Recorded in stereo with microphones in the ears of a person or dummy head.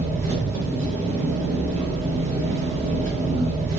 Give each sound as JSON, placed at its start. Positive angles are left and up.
{"t": 0.0, "sound": "an engine running", "side_deg": -40, "distance_m": 1.1}